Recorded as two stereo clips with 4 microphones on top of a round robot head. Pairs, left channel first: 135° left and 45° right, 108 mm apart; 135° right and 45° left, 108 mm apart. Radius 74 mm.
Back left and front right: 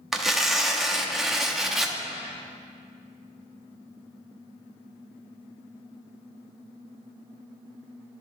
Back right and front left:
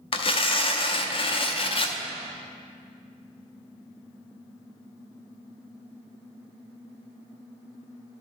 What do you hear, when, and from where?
0.1 s tearing paper: 135° right, 0.7 m